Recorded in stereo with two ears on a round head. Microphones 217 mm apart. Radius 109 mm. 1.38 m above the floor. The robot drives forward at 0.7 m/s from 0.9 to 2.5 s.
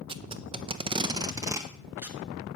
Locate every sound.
0.1 s tape being pulled: 20° right (ahead or behind), 0.6 m; by 2.2 s 10° right (ahead or behind), 1.4 m